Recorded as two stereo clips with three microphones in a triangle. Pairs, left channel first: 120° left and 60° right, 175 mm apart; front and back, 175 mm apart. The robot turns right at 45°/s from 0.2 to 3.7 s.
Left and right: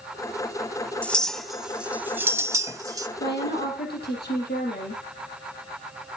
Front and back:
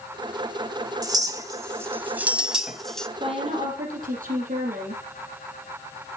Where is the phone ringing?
No phone ringing in this recording.